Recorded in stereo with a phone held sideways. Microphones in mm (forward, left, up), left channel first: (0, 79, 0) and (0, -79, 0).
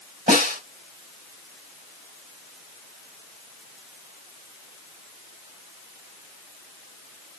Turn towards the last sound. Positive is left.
turn(degrees=-65)  # may be behind; listen again after turning